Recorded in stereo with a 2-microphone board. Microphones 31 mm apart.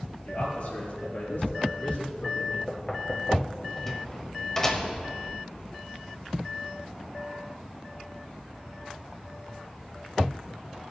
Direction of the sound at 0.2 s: 70° left (ahead or behind).